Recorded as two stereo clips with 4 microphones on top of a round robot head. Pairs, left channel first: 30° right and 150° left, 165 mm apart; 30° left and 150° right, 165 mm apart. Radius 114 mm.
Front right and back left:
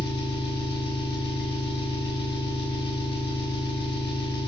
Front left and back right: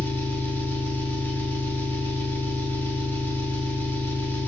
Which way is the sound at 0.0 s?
45° right.